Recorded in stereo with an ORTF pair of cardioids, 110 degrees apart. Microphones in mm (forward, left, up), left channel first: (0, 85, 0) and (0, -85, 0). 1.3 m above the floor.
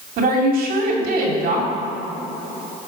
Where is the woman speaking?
60° right, 3 m.